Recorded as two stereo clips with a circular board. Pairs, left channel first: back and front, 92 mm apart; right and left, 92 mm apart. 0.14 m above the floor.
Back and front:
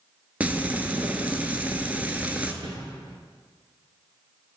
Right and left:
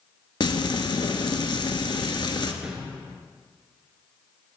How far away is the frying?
About 0.7 m.